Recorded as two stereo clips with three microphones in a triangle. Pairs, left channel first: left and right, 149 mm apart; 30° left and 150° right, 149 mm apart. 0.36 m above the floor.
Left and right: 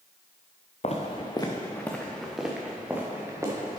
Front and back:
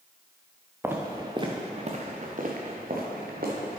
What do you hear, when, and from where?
0.8 s footsteps: 135° left, 1.6 m; by 3.8 s 160° right, 3 m